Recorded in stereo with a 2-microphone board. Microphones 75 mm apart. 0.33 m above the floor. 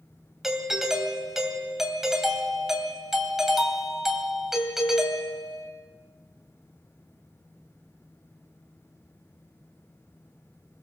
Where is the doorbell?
5° right (ahead or behind), 2.5 m.